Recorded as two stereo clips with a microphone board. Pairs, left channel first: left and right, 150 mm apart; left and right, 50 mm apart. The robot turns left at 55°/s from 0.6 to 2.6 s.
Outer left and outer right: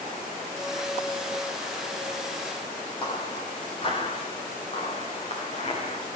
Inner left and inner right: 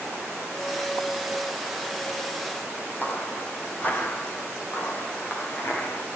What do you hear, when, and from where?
3.0 s footsteps: 35° left (ahead or behind), 4.5 m; by 6.1 s 45° left (ahead or behind), 6.5 m